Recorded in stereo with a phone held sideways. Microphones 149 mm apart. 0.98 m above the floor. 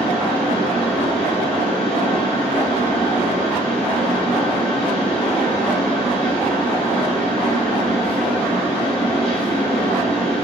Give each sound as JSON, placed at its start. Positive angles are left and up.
{"t": 0.0, "sound": "a fan", "side_deg": 5, "distance_m": 1.2}